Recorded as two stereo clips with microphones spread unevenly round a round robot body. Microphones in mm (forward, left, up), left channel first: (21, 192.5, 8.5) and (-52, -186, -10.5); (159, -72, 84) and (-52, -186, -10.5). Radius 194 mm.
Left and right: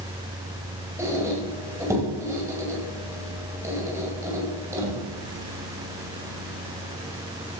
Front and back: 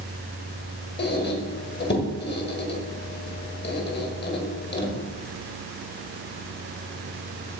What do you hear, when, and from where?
1.0 s a squeak: 20° right, 2.5 m